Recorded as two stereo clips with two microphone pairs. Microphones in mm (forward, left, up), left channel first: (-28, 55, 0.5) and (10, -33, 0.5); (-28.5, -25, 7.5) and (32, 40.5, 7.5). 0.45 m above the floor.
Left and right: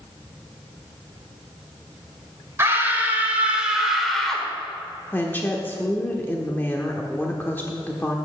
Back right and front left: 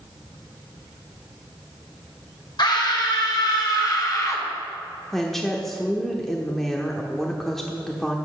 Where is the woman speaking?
145° left, 0.9 m.